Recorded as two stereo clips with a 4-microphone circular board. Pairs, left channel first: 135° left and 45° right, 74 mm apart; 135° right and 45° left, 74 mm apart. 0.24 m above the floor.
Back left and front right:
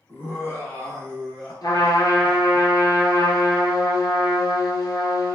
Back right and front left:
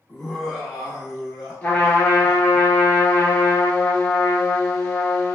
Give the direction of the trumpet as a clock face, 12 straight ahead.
7 o'clock.